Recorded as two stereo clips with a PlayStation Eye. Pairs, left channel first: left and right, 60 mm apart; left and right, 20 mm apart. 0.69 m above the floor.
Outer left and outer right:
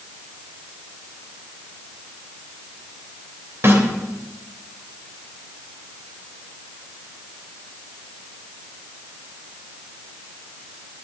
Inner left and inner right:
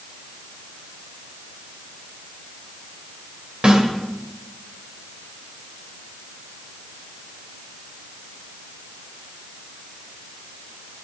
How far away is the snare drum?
About 3 m.